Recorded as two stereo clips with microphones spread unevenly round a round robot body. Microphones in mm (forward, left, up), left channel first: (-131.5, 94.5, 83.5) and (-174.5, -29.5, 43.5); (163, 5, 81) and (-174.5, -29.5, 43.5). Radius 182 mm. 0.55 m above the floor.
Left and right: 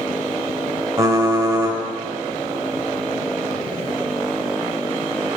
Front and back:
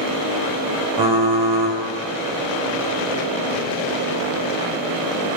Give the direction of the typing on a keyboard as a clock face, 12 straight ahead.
6 o'clock.